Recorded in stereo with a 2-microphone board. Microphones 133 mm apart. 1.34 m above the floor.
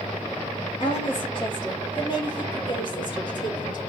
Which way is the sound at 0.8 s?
40° left (ahead or behind).